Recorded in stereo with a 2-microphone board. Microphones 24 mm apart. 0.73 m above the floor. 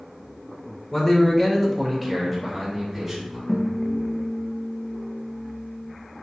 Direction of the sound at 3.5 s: 20° left (ahead or behind).